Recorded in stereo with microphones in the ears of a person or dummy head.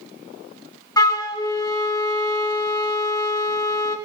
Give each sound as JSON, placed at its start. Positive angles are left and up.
{"t": 1.0, "sound": "a flute", "side_deg": 15, "distance_m": 1.1}